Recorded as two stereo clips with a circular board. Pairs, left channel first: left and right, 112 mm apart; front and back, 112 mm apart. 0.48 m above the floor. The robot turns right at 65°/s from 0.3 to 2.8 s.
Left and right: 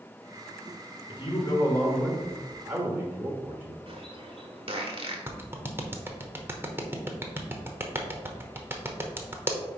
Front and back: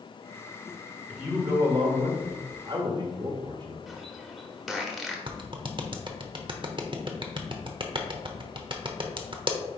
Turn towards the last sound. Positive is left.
turn(degrees=-155)